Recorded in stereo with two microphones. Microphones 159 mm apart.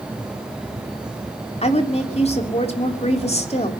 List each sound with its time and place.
1.6 s a woman speaking: 40° left (ahead or behind), 2.5 m